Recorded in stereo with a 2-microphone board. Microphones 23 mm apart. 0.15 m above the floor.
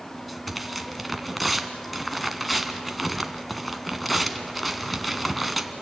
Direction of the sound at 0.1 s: Centre (ahead or behind).